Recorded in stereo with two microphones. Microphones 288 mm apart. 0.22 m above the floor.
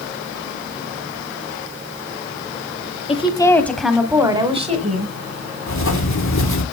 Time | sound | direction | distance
3.1 | a woman speaking | 20° left (ahead or behind) | 1.4 m
5.7 | writing | 85° left | 2 m